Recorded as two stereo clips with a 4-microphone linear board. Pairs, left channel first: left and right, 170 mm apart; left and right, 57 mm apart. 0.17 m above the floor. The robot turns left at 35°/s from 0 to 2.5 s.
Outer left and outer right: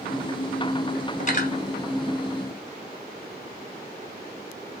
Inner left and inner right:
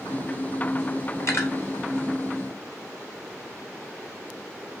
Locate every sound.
1.2 s cutlery clinking: 45° left (ahead or behind), 1.4 m; by 1.5 s 55° left (ahead or behind), 1.4 m